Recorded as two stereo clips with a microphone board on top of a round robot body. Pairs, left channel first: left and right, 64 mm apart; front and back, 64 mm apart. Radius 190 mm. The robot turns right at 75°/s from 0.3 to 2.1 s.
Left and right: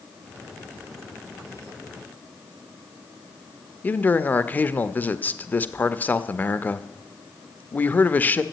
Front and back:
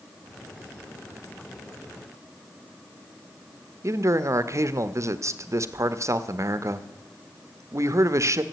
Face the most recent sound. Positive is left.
turn(degrees=150)